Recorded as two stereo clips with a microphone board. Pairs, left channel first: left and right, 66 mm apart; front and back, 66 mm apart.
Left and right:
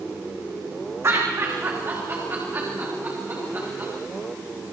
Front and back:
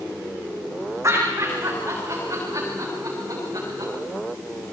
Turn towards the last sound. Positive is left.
turn(degrees=-155)